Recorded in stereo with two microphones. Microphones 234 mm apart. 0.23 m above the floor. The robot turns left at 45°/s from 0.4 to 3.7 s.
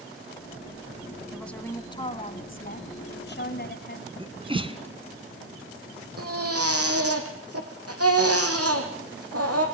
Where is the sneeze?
25° right (ahead or behind), 2.5 m.